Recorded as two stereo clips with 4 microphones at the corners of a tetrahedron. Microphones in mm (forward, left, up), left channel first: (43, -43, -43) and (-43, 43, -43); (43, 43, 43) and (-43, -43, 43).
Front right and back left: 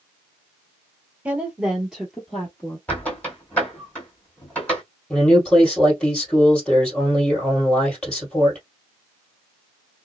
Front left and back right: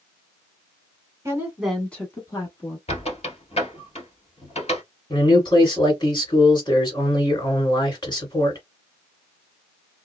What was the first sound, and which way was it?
A woman speaking, 160° right.